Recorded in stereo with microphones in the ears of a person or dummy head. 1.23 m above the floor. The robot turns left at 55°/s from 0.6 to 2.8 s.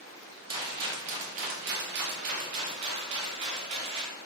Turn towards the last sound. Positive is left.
turn(degrees=-145)